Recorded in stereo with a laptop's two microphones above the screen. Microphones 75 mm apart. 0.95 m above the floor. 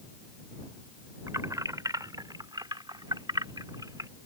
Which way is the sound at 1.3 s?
45° right (ahead or behind).